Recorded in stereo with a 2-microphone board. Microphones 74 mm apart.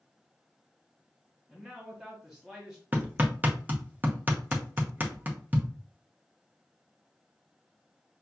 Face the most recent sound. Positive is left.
turn(degrees=-25)  # may be behind; listen again after turning